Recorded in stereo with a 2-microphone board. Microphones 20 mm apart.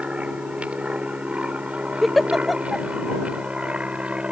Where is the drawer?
I don't hear a drawer.